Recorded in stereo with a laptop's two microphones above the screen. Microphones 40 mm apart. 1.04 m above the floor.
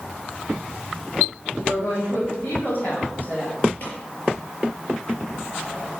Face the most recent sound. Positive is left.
turn(degrees=40)  # may be behind; listen again after turning